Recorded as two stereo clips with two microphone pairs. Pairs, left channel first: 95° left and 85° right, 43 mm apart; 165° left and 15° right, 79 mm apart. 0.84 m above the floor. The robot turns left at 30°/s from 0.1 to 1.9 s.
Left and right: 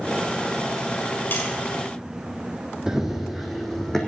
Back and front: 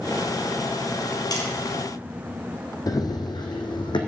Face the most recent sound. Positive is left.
turn(degrees=175)